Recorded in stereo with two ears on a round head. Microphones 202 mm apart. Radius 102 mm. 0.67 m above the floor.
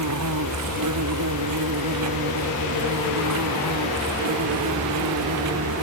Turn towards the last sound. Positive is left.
turn(degrees=-80)